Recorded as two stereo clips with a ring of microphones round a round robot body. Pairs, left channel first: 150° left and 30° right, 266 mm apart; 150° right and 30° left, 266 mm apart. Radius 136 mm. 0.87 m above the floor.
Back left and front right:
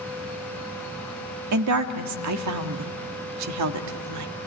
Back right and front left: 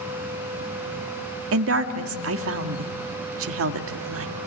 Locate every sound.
1.5 s a woman speaking: 10° right, 1.7 m